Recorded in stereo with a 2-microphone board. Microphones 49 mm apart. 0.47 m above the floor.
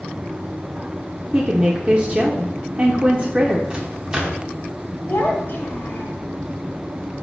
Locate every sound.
1.3 s a woman speaking: 25° right (ahead or behind), 0.7 m
3.7 s a microwave: 20° right (ahead or behind), 0.9 m
5.1 s a child speaking: 40° left (ahead or behind), 1.7 m